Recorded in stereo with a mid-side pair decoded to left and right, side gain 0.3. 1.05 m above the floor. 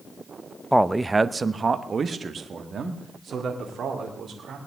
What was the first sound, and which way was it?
A man speaking, 5° right.